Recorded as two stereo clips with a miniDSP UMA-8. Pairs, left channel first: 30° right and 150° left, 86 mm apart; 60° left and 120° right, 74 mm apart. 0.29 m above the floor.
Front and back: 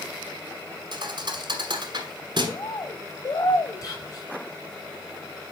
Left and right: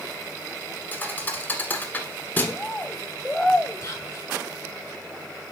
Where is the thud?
125° left, 1.3 m.